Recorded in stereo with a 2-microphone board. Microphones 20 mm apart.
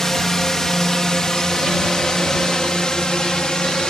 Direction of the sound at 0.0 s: 25° left (ahead or behind).